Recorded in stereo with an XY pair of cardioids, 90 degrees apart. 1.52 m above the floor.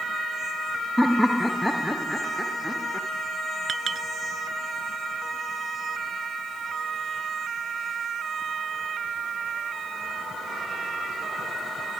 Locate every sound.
1.0 s laughter: 5° left
3.7 s a clink: 55° right